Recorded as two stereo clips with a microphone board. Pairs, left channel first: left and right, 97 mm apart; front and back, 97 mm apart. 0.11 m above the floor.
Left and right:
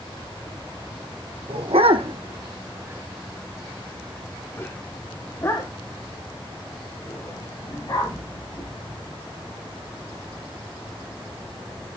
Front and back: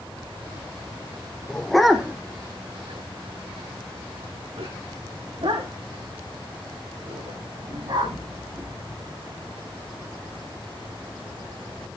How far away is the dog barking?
About 1.8 m.